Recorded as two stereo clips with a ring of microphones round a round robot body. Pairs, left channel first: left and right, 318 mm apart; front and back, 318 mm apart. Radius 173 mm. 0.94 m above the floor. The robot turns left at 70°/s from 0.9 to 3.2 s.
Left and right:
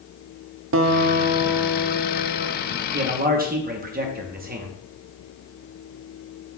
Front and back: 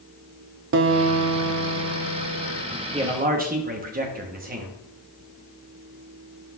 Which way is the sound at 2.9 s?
115° right.